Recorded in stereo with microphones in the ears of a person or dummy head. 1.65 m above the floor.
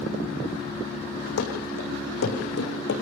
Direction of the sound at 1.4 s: 75° left (ahead or behind).